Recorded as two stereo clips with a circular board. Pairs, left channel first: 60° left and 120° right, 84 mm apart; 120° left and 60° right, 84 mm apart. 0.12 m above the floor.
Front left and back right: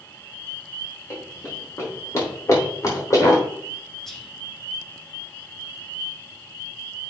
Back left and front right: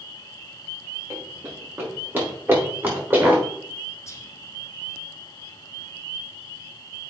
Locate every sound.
1.1 s running footsteps: straight ahead, 4.5 m; by 3.4 s 5° left, 5.5 m
4.1 s whispering: 140° left, 1.7 m